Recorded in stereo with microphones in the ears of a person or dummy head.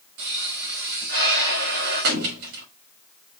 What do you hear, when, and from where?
0.2 s a pop: 55° right (ahead or behind), 1.9 m